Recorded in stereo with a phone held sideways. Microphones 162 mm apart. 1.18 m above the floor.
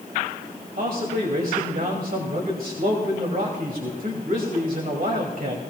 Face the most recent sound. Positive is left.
turn(degrees=-70)  # may be behind; listen again after turning